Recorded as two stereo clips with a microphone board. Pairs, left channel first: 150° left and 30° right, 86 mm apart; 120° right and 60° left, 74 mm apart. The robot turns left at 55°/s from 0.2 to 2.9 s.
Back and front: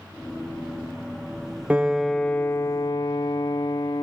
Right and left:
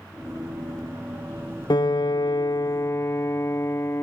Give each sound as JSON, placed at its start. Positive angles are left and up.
{"t": 1.7, "sound": "a piano", "azimuth_deg": -105, "distance_m": 0.6}